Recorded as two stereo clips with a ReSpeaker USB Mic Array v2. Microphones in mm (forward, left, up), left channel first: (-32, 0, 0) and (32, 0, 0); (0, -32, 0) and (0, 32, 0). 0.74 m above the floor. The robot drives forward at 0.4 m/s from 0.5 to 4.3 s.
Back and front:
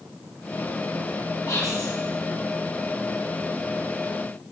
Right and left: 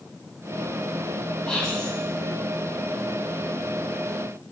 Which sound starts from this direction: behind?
Whispering, at 1.5 s.